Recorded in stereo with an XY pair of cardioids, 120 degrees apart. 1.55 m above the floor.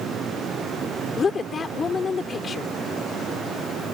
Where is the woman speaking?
30° left.